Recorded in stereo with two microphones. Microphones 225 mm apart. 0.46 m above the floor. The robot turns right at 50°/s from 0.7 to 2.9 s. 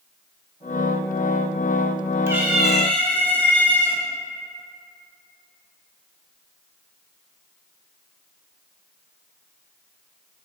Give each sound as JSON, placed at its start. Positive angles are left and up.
{"t": 2.3, "sound": "a cat meowing", "azimuth_deg": -20, "distance_m": 0.5}